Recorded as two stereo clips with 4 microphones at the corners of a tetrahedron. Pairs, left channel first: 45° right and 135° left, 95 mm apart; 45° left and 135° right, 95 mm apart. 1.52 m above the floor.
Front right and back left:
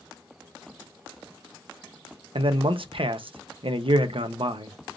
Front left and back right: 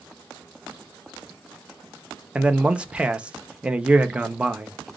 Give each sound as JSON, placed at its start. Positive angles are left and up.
{"t": 2.4, "sound": "a man speaking", "azimuth_deg": 150, "distance_m": 0.7}